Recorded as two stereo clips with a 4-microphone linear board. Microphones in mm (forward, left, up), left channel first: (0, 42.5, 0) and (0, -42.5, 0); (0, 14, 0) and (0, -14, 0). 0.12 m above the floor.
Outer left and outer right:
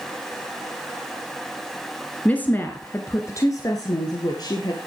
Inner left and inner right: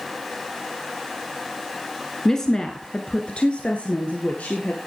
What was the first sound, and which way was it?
A woman speaking, 15° left (ahead or behind).